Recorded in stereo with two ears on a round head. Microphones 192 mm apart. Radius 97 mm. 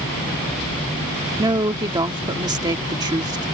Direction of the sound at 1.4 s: 20° right (ahead or behind).